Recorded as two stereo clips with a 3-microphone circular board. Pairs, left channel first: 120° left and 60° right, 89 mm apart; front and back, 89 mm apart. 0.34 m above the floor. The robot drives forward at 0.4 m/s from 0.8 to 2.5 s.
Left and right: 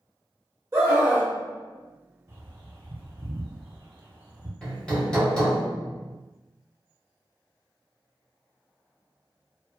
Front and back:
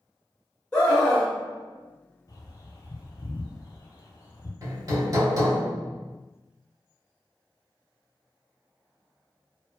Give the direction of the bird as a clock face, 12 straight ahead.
12 o'clock.